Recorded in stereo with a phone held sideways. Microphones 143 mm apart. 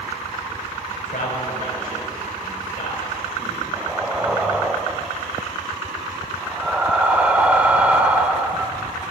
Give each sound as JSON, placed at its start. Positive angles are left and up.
{"t": 0.9, "sound": "a man speaking", "side_deg": 75, "distance_m": 6.5}
{"t": 3.7, "sound": "breathing", "side_deg": -10, "distance_m": 0.9}